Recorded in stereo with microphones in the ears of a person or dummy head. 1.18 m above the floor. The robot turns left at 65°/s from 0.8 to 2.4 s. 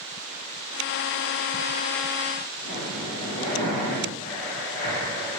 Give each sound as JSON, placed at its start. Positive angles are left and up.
{"t": 2.6, "sound": "breathing", "side_deg": 35, "distance_m": 0.8}